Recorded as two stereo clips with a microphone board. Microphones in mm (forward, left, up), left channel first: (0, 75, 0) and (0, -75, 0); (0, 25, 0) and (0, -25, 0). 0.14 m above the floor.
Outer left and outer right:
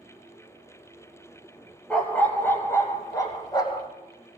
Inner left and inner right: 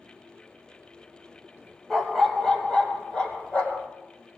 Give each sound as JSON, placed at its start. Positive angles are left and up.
{"t": 1.9, "sound": "a dog barking", "side_deg": 5, "distance_m": 1.6}